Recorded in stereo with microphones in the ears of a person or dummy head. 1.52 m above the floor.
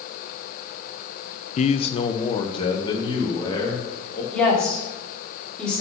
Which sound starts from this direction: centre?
A woman speaking, at 4.3 s.